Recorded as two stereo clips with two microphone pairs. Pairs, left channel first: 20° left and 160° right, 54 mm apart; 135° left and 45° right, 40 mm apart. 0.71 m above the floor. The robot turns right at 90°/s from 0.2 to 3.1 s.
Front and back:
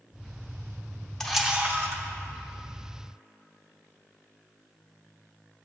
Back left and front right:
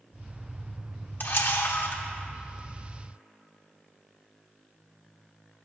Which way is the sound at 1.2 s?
100° left.